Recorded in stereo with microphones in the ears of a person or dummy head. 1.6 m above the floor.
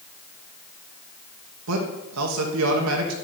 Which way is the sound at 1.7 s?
85° right.